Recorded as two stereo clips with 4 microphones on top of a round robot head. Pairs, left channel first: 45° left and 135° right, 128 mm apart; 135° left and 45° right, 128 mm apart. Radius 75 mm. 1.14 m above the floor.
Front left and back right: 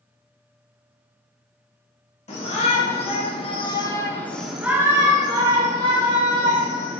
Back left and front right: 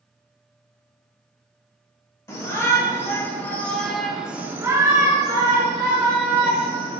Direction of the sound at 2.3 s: 70° left.